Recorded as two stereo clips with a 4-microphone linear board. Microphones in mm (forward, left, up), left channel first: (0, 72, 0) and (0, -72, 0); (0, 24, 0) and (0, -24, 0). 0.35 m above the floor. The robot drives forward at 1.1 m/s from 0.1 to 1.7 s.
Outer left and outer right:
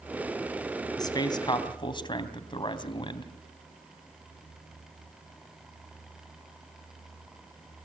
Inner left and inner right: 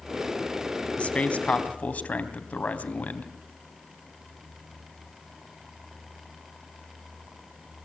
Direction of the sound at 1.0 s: 30° left (ahead or behind).